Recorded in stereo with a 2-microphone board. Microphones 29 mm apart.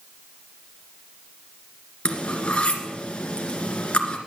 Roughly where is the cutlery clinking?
Left.